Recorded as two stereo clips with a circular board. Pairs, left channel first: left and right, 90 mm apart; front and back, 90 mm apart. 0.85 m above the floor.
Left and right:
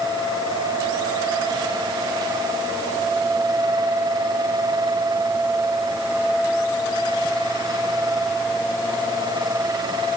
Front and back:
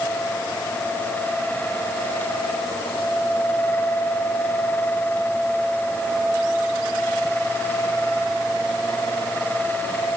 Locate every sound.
Only background noise.